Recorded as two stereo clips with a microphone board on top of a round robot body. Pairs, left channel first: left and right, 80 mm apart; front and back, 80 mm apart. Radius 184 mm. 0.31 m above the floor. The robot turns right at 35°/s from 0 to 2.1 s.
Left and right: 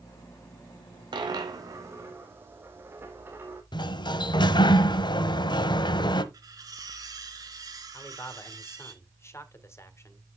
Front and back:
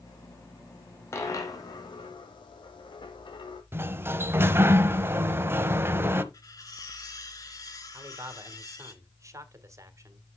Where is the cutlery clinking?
45° right, 3.5 m.